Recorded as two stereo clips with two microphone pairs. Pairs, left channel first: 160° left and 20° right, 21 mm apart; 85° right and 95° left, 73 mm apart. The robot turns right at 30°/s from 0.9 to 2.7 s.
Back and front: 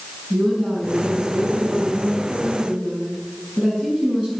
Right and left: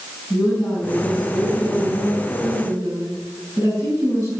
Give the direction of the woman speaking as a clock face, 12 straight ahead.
12 o'clock.